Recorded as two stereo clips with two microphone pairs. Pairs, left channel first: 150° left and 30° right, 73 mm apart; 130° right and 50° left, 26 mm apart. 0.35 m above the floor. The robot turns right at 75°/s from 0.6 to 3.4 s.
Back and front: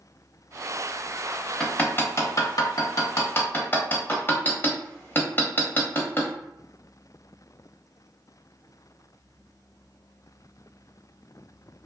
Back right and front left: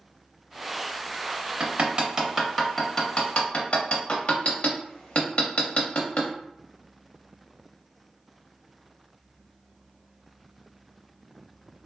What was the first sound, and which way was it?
Hammering, 65° left.